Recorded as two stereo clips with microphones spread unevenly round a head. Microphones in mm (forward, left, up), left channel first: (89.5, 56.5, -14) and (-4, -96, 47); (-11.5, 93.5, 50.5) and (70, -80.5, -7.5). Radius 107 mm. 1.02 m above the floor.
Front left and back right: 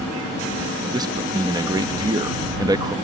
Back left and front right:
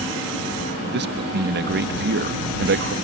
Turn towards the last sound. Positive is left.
turn(degrees=-45)